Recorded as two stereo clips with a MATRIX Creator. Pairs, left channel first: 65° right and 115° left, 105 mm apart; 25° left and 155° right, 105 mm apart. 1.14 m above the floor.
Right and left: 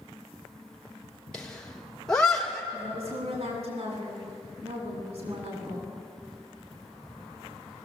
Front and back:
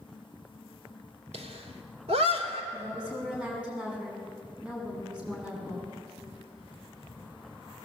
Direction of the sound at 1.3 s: 150° right.